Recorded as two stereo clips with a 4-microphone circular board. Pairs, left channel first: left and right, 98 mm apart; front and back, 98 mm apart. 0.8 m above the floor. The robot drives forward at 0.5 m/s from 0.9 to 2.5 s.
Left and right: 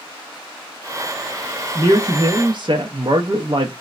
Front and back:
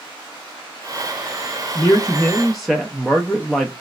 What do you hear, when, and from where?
1.8 s a man speaking: 45° right, 0.6 m; by 3.7 s 90° right, 0.5 m